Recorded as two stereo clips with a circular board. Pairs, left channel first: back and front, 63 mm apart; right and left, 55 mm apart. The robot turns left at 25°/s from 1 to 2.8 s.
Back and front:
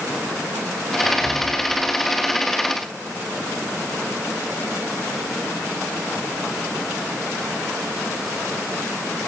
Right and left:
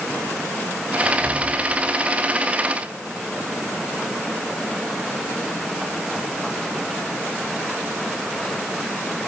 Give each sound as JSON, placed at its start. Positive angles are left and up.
{"t": 1.0, "sound": "whispering", "azimuth_deg": 165, "distance_m": 6.5}